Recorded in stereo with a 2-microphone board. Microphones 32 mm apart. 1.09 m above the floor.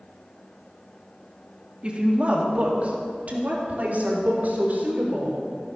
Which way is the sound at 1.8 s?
35° right (ahead or behind).